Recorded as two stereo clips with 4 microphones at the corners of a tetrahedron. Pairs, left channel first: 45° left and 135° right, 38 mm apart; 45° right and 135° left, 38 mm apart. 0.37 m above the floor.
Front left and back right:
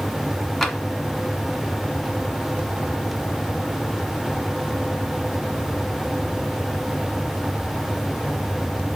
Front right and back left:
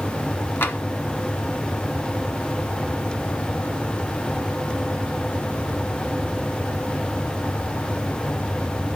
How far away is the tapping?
About 0.8 m.